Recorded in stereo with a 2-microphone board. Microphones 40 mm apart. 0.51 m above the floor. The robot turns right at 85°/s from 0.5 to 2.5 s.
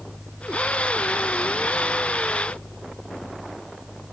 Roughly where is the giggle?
I don't hear a giggle.